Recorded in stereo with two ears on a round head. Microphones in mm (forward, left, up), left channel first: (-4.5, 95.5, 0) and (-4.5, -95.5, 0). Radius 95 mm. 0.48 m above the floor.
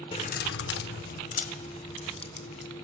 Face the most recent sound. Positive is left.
turn(degrees=30)  # may be behind; listen again after turning